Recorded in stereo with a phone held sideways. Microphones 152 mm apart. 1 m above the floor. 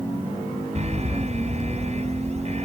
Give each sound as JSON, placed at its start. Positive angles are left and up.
{"t": 0.8, "sound": "an alarm", "side_deg": -45}